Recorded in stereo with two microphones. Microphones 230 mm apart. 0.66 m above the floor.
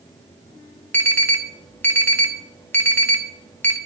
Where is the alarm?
10° left (ahead or behind), 1.2 m.